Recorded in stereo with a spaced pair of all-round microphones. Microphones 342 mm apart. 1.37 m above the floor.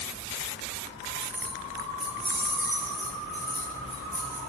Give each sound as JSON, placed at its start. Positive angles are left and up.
{"t": 1.2, "sound": "keys jangling", "side_deg": -15, "distance_m": 0.8}
{"t": 3.3, "sound": "keys jangling", "side_deg": -40, "distance_m": 2.5}